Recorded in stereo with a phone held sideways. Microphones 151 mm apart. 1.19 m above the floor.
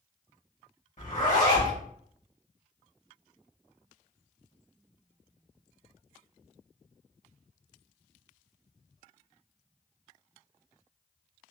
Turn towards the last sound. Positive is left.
turn(degrees=60)  # may be behind; listen again after turning